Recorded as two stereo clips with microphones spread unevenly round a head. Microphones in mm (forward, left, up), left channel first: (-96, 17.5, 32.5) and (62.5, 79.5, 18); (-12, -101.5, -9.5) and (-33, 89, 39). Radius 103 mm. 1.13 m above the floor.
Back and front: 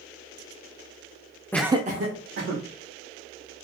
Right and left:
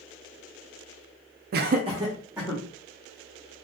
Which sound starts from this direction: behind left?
Laughter, at 1.5 s.